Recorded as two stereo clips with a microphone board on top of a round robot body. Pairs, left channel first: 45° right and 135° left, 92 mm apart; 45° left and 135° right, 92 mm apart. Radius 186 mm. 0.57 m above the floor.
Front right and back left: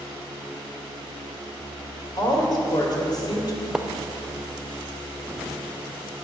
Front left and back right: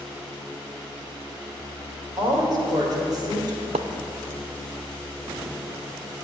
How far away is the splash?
About 0.5 m.